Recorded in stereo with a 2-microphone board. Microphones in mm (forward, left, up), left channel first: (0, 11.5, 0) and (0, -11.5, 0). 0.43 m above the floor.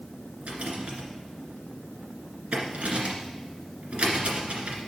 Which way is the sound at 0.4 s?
70° right (ahead or behind).